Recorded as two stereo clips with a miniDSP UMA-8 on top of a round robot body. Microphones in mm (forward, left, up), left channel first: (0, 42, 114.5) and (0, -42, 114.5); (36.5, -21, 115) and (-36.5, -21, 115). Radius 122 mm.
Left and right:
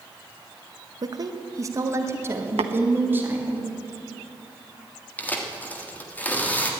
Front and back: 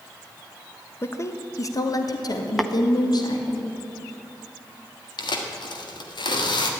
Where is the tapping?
90° right, 0.7 m.